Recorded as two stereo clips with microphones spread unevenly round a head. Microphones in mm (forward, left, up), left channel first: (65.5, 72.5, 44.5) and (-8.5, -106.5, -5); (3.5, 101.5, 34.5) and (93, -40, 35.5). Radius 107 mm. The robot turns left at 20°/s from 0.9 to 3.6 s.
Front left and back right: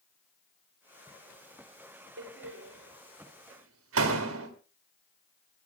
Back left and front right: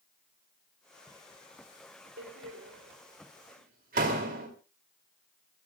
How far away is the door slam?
About 2.5 m.